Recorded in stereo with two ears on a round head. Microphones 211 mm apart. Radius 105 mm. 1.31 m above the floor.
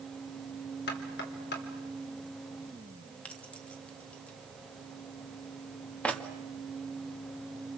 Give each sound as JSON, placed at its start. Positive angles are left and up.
{"t": 0.9, "sound": "knocking", "side_deg": 45, "distance_m": 3.0}
{"t": 3.2, "sound": "keys jangling", "side_deg": 5, "distance_m": 1.8}